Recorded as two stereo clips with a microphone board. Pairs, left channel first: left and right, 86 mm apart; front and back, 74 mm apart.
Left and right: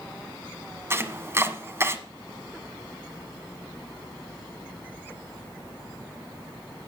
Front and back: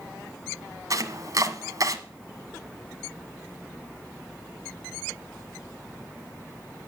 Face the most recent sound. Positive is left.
turn(degrees=-150)